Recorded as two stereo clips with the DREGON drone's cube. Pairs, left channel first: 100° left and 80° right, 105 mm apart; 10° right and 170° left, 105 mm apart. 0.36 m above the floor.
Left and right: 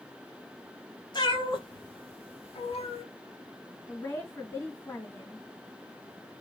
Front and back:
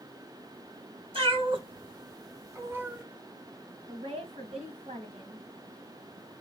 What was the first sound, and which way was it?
A cat meowing, 145° left.